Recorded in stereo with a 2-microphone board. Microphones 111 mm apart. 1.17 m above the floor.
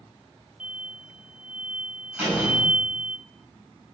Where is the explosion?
10° right (ahead or behind), 0.5 m.